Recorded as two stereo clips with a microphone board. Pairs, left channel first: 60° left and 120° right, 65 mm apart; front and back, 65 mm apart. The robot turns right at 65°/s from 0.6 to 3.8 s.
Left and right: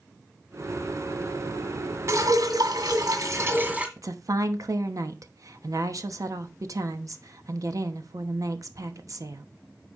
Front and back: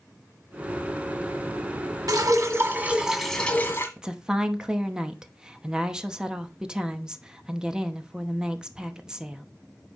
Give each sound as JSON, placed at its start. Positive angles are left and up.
{"t": 2.1, "sound": "dripping", "azimuth_deg": -165, "distance_m": 1.8}
{"t": 4.0, "sound": "a woman speaking", "azimuth_deg": -100, "distance_m": 0.9}